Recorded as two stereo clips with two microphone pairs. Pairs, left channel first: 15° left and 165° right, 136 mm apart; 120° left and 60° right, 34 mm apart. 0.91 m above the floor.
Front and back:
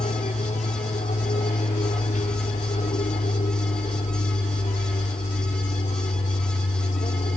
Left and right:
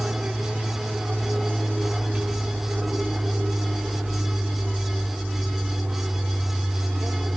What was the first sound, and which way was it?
An aircraft, 5° right.